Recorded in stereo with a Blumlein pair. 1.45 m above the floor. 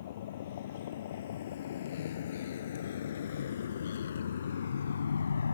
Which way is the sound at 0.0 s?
60° left.